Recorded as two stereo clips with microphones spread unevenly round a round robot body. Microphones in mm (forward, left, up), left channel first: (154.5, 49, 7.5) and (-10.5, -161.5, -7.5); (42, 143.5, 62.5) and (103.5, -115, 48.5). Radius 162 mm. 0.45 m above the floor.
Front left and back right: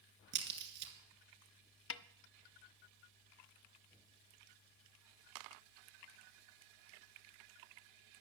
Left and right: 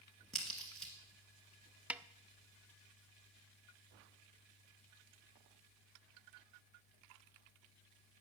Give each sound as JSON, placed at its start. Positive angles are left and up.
{"t": 0.3, "sound": "a crack", "azimuth_deg": -170, "distance_m": 1.9}
{"t": 1.9, "sound": "a snare drum", "azimuth_deg": 10, "distance_m": 0.6}